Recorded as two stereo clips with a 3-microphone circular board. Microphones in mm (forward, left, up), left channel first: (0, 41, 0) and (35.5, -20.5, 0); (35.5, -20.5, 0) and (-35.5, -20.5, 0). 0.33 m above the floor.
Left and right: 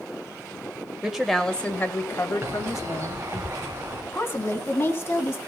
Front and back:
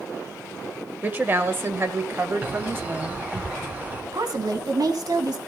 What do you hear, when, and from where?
1.0 s a woman speaking: 135° right, 1.3 m; by 3.4 s 125° left, 2.5 m
2.4 s a bird: 110° right, 4 m
4.1 s a woman speaking: 175° left, 2.5 m